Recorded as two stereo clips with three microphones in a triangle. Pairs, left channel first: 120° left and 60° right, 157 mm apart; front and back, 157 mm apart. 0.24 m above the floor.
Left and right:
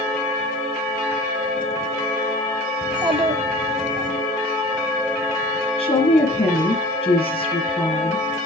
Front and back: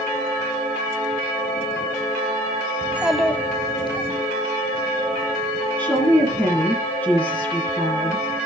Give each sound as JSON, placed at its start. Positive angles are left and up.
{"t": 2.8, "sound": "a child speaking", "azimuth_deg": -115, "distance_m": 1.0}
{"t": 5.8, "sound": "a woman speaking", "azimuth_deg": 80, "distance_m": 1.9}